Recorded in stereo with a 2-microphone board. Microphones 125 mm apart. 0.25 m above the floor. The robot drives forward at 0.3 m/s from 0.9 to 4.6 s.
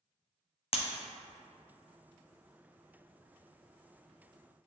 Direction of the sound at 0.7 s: 50° left (ahead or behind).